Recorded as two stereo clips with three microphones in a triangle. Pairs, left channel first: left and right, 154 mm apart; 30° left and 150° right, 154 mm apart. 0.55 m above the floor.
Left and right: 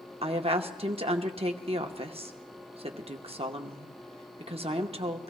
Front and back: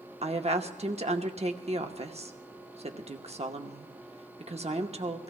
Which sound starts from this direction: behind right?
A woman speaking, at 0.2 s.